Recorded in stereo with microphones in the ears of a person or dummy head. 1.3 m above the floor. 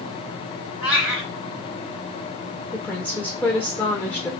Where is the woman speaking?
10° left (ahead or behind), 0.6 m.